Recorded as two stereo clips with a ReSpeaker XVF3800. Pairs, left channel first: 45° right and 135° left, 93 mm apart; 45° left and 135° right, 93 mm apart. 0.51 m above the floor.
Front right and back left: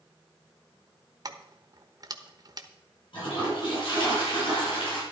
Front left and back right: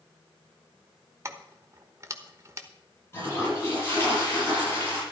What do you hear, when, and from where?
1.2 s keys jangling: 175° left, 1.1 m
3.1 s a toilet flushing: 20° right, 8.5 m